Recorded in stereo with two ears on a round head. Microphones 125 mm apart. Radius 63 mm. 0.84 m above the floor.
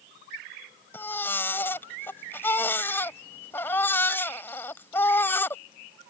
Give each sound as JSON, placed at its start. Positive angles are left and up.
{"t": 0.9, "sound": "a baby crying", "side_deg": 15}